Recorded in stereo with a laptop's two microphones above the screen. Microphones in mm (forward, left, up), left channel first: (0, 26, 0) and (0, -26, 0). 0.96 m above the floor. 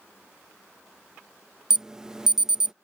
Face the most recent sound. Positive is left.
turn(degrees=-10)  # may be behind; listen again after turning